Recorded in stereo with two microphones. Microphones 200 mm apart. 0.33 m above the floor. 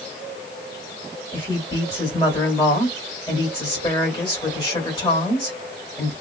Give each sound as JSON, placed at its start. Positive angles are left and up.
{"t": 1.3, "sound": "a woman speaking", "side_deg": 25, "distance_m": 1.6}